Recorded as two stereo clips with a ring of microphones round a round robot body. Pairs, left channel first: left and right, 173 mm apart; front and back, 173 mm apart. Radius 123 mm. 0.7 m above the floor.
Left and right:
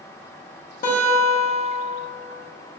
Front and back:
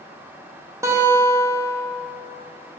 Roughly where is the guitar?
Left.